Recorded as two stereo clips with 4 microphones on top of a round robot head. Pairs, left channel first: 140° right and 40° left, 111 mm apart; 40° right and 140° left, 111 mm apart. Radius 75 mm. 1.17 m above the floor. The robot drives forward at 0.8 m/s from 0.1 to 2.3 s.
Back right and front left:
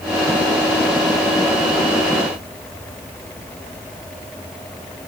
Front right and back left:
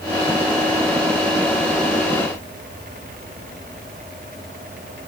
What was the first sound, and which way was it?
Only background noise.